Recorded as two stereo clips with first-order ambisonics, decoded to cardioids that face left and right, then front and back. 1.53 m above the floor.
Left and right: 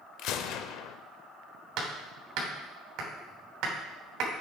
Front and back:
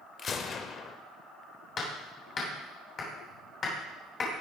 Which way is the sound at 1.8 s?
60° right.